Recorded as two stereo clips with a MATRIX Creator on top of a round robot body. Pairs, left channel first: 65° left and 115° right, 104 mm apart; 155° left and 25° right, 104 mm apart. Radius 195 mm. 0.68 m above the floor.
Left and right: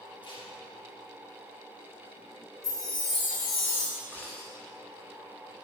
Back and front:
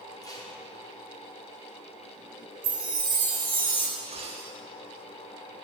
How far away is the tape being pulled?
About 2.5 m.